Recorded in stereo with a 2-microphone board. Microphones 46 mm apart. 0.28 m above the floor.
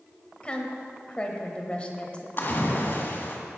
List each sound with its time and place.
0.4 s a woman speaking: 25° left (ahead or behind), 1.2 m
2.4 s a splash: 45° left (ahead or behind), 1.9 m